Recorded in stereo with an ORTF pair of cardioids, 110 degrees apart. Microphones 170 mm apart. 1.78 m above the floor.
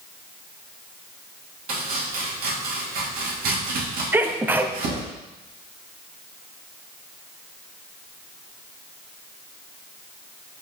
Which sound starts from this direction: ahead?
A sneeze, at 4.1 s.